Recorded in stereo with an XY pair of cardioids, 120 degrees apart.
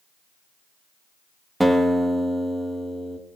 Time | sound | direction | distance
1.6 | a guitar | 5° right | 1.7 m